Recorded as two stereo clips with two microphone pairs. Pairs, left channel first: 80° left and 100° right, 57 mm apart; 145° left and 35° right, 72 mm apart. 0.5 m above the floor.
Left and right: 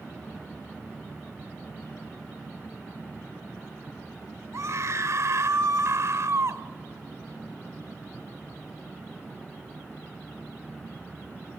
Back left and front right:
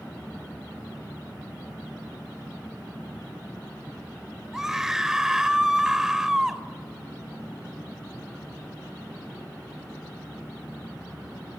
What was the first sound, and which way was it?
A scream, 120° right.